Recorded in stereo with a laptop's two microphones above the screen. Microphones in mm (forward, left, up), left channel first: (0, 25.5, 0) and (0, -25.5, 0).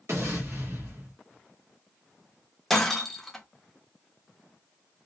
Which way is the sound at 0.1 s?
65° right (ahead or behind).